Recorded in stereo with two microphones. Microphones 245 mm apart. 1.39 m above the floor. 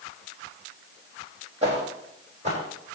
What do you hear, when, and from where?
1.6 s footsteps: 25° right (ahead or behind), 4 m; by 2.6 s 30° right (ahead or behind), 4.5 m